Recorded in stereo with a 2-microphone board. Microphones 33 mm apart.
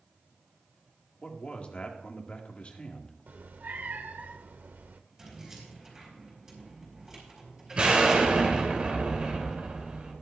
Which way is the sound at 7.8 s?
35° right (ahead or behind).